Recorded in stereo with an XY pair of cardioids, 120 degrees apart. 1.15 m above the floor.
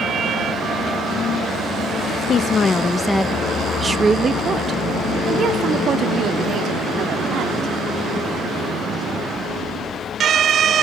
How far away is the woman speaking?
About 0.8 m.